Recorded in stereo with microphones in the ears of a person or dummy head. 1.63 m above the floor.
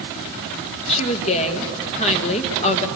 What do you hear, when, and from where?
0.9 s a woman speaking: 35° left (ahead or behind), 1.7 m